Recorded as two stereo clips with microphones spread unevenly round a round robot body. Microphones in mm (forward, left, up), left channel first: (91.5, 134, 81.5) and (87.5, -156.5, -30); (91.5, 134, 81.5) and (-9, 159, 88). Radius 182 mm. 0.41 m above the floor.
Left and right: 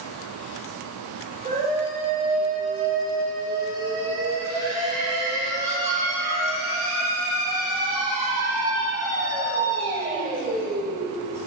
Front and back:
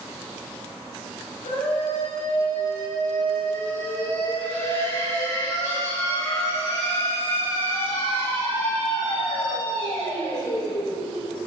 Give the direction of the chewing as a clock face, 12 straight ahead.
I don't hear chewing.